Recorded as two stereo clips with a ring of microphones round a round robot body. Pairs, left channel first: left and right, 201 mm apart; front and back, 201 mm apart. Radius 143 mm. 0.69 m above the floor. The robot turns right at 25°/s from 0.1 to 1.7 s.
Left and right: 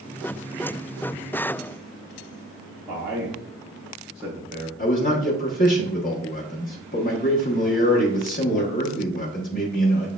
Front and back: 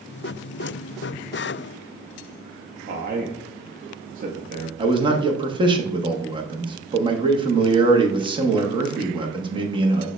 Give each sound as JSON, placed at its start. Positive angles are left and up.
{"t": 2.9, "sound": "a man speaking", "azimuth_deg": -175, "distance_m": 0.6}
{"t": 4.8, "sound": "a man speaking", "azimuth_deg": 120, "distance_m": 0.8}